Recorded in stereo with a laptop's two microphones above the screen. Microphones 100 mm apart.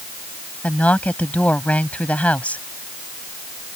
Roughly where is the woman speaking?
Centre.